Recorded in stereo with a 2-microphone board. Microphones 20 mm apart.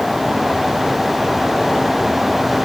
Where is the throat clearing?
No throat clearing in this recording.